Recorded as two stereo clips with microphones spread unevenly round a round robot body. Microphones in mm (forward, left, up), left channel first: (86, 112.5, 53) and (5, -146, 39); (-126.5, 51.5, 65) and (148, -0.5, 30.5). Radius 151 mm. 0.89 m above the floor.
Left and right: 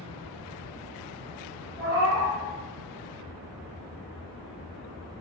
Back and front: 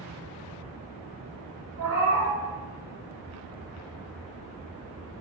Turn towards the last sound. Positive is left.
turn(degrees=-35)